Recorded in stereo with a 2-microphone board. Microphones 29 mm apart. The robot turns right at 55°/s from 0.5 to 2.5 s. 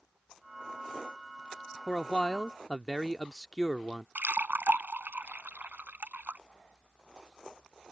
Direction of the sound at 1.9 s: 25° left (ahead or behind).